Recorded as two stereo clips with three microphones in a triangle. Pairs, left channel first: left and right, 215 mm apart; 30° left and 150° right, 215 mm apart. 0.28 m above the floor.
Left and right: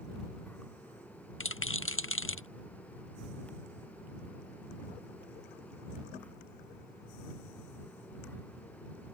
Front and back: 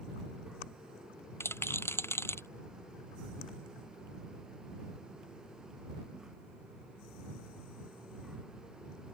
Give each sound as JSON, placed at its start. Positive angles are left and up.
{"t": 1.4, "sound": "a rattle", "azimuth_deg": 110}